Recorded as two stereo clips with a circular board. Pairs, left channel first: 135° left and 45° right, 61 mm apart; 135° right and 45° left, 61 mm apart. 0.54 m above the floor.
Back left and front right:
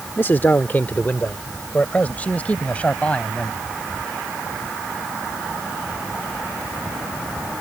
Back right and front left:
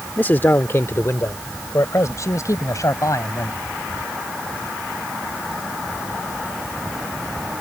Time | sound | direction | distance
0.2 | a man speaking | 175° left | ?